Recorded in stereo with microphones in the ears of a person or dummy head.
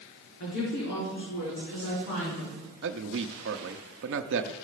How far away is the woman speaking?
About 3.5 m.